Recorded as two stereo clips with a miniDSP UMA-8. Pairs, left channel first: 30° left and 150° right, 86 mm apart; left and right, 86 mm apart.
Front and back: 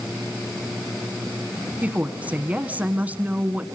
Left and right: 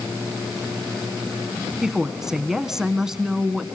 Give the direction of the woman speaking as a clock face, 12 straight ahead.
5 o'clock.